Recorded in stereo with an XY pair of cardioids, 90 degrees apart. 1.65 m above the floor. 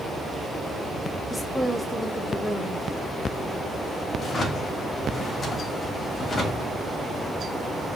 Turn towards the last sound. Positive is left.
turn(degrees=50)